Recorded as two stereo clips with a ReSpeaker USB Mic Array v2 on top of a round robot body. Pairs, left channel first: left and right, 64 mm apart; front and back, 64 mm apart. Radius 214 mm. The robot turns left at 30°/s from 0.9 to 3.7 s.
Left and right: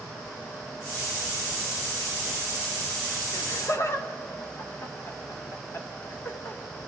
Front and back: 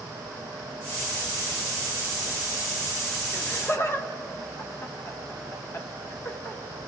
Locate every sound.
3.3 s laughter: 60° left, 2 m; by 6.6 s 50° left, 2 m